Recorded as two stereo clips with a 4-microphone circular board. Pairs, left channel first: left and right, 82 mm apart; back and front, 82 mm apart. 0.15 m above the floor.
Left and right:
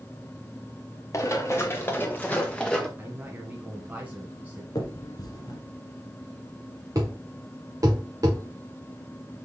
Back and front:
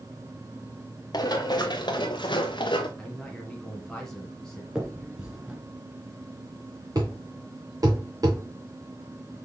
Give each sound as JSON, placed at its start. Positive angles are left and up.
{"t": 1.1, "sound": "running footsteps", "azimuth_deg": 145, "distance_m": 1.7}
{"t": 3.0, "sound": "a man speaking", "azimuth_deg": -110, "distance_m": 1.4}
{"t": 4.8, "sound": "a finger snap", "azimuth_deg": 75, "distance_m": 1.7}
{"t": 7.0, "sound": "a thud", "azimuth_deg": -45, "distance_m": 2.5}